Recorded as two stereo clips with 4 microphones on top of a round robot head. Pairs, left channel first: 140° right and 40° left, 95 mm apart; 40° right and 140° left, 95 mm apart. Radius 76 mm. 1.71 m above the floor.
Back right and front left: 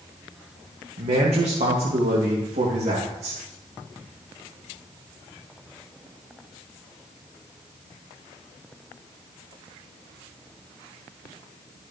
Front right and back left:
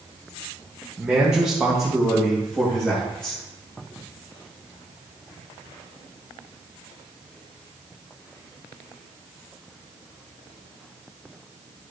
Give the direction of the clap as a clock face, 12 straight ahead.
I don't hear a clap.